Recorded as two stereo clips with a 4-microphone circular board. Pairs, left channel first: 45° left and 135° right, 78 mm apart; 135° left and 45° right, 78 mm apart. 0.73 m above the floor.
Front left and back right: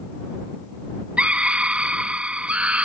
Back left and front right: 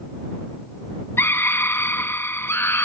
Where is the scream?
160° left.